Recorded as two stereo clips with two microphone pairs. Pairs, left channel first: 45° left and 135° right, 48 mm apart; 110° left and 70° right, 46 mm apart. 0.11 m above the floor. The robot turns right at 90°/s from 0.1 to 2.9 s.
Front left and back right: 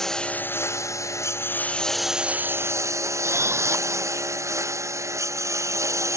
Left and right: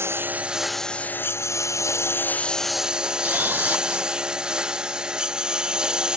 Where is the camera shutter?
115° right.